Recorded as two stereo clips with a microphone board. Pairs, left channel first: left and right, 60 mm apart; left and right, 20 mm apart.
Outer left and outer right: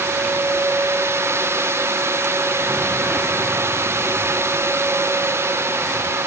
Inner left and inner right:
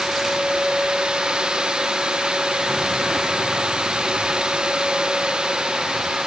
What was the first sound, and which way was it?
Only background noise.